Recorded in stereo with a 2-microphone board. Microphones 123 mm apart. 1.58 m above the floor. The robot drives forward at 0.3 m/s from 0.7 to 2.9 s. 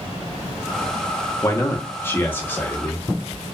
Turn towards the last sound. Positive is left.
turn(degrees=15)  # may be behind; listen again after turning